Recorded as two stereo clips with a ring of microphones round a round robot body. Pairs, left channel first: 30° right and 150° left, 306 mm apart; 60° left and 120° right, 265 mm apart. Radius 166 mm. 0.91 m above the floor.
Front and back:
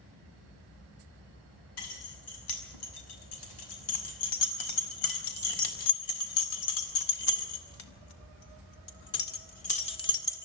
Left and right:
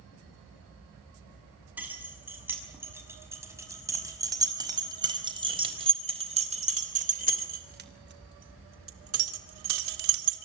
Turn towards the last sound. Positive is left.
turn(degrees=-110)